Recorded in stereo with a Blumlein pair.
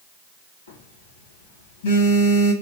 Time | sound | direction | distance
0.7 | a phone buzzing | 65° left | 1.4 m